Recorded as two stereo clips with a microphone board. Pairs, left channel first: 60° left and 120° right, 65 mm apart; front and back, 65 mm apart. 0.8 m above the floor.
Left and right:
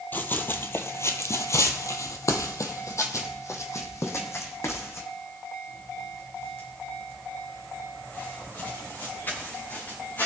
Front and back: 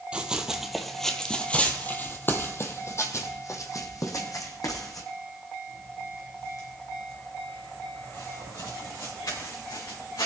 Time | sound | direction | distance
0.1 | running footsteps | 110° left | 1.2 m